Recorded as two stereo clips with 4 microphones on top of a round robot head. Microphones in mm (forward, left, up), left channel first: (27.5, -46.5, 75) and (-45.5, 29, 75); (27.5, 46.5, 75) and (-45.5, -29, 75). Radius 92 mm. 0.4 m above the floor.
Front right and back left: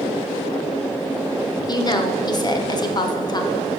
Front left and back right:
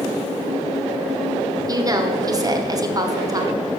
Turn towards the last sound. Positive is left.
turn(degrees=-85)